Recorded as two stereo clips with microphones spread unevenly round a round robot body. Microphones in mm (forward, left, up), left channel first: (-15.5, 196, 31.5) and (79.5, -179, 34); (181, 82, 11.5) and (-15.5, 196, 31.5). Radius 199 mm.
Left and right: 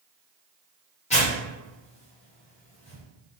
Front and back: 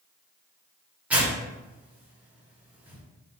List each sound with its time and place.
1.1 s tearing paper: 65° left, 1.1 m